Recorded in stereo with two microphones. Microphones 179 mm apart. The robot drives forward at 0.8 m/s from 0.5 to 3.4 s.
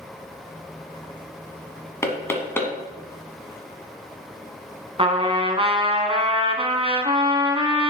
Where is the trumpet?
35° right (ahead or behind), 0.8 m.